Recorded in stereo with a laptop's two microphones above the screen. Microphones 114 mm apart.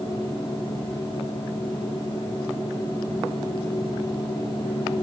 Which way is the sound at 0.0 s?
45° left (ahead or behind).